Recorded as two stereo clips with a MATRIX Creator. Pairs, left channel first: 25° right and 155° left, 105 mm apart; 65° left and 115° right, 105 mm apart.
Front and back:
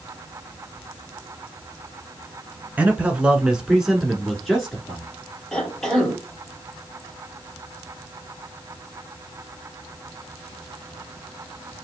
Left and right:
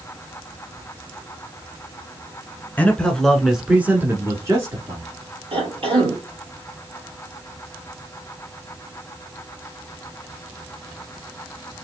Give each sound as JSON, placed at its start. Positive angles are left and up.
{"t": 2.8, "sound": "a man speaking", "azimuth_deg": 105, "distance_m": 1.1}
{"t": 5.5, "sound": "a cough", "azimuth_deg": -110, "distance_m": 2.5}